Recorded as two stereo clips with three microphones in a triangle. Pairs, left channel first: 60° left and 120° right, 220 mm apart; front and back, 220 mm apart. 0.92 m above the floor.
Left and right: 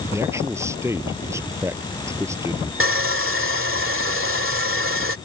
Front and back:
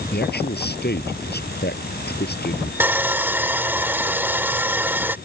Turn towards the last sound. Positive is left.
turn(degrees=-100)